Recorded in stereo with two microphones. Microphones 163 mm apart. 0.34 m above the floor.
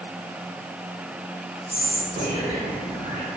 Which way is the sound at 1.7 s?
10° right (ahead or behind).